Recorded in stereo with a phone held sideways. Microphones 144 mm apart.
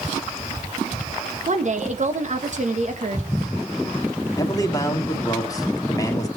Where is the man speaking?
25° left (ahead or behind), 2.0 m.